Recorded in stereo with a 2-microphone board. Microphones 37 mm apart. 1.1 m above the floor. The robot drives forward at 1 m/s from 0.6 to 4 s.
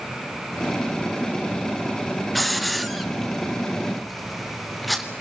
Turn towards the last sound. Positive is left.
turn(degrees=0)  # may be behind; listen again after turning